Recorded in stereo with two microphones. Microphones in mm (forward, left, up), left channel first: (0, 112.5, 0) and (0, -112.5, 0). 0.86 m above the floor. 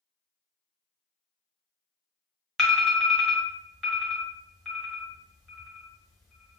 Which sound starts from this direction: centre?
An alarm, at 2.6 s.